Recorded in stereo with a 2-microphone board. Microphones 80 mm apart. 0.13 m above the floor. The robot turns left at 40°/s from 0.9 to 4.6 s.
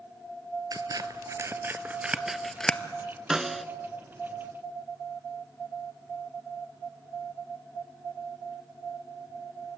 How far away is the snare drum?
About 0.6 m.